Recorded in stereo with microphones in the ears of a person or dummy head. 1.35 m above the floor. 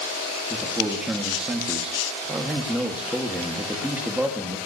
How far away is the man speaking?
About 1.9 m.